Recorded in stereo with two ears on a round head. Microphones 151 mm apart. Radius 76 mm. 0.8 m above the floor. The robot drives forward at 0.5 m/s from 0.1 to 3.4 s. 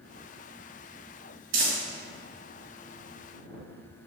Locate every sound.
1.5 s crumpling: 80° right, 2 m